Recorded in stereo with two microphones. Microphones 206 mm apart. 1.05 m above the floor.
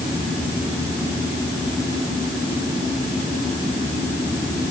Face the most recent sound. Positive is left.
No sound to turn to.